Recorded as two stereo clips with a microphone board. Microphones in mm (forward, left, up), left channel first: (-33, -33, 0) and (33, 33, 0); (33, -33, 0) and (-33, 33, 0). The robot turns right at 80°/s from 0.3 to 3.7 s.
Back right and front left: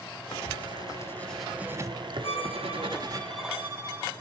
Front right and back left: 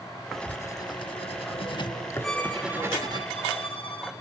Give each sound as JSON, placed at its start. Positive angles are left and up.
{"t": 0.3, "sound": "writing", "azimuth_deg": -135, "distance_m": 1.2}
{"t": 2.2, "sound": "a violin", "azimuth_deg": -135, "distance_m": 3.5}